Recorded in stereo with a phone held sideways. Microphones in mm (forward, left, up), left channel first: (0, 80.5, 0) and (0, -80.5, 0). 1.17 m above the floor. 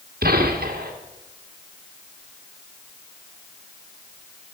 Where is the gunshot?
75° right (ahead or behind), 2.5 m.